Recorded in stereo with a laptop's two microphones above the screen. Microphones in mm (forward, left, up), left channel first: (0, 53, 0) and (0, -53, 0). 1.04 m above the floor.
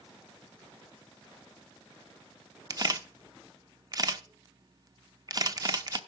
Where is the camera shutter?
35° right (ahead or behind), 0.7 m.